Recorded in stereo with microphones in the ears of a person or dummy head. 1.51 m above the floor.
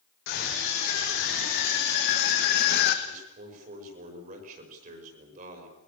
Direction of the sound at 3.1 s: 50° right (ahead or behind).